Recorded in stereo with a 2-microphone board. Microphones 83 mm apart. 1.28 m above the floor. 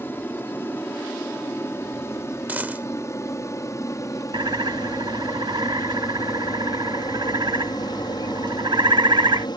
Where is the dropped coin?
20° right (ahead or behind).